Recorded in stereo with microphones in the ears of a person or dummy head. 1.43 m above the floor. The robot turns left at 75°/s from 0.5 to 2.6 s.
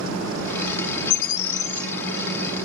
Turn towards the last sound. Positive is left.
turn(degrees=-50)